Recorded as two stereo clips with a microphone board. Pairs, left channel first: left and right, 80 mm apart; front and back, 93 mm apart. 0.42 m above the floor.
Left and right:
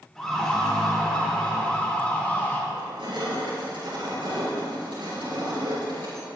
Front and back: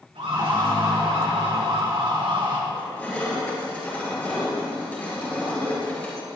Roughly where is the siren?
Behind.